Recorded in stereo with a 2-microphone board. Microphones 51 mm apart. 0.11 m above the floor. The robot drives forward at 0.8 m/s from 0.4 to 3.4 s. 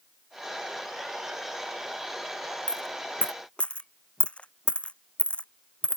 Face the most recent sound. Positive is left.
turn(degrees=25)  # may be behind; listen again after turning